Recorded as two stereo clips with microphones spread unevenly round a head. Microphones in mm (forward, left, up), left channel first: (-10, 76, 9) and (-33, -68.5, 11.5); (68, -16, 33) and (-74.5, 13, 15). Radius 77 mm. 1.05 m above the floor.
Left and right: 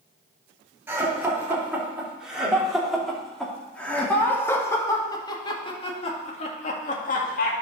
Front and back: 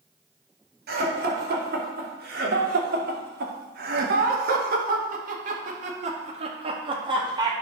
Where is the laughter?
175° right, 4 m; by 7.5 s 105° left, 2 m.